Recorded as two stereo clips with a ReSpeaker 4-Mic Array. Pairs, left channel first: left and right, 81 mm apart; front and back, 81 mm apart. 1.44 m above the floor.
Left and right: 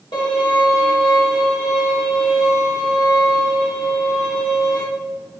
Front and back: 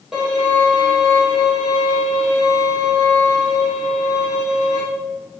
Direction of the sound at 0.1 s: 95° left.